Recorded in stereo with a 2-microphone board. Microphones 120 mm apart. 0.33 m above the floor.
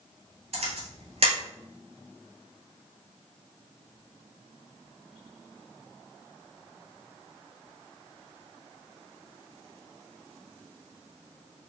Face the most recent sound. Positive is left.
turn(degrees=-60)  # may be behind; listen again after turning